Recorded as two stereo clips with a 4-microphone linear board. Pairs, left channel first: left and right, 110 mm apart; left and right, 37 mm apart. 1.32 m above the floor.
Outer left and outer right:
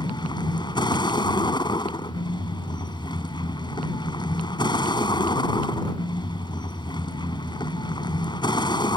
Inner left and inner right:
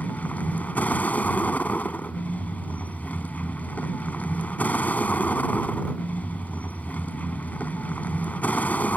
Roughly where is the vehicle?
Left.